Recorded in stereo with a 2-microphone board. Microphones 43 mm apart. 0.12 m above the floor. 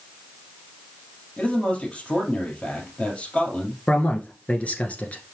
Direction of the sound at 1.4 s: 35° left (ahead or behind).